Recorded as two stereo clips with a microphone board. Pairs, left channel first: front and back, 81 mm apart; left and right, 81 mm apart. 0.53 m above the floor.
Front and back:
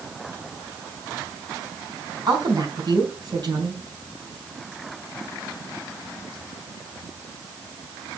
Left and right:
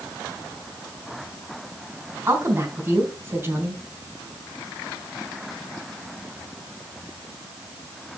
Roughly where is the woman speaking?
Behind right.